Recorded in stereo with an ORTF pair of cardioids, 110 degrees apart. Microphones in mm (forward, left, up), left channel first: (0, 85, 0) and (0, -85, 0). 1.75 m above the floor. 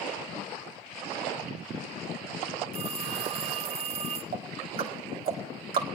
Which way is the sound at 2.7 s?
40° right.